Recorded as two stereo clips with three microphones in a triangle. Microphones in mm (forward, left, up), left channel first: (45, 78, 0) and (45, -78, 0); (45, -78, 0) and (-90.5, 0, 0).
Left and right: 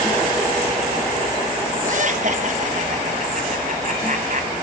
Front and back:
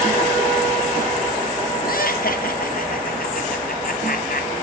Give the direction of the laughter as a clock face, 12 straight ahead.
2 o'clock.